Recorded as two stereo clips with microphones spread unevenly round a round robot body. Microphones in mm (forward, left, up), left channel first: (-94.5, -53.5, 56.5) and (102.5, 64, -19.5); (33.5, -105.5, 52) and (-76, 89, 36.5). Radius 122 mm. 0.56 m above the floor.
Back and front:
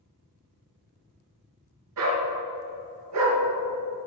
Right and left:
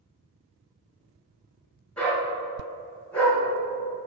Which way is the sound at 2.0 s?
25° left.